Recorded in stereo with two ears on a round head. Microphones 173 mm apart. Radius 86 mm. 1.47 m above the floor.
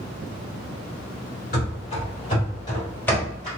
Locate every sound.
1.5 s running footsteps: 45° left (ahead or behind), 1.9 m; by 3.5 s centre (ahead or behind), 1.6 m